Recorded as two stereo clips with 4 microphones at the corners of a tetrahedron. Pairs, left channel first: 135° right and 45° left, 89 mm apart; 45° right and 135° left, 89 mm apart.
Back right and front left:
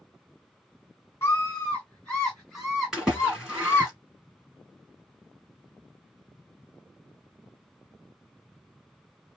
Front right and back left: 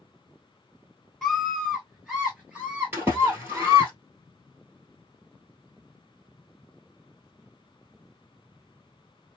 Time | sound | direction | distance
1.2 | a scream | 130° right | 1.6 m
2.9 | a splash | 115° left | 1.7 m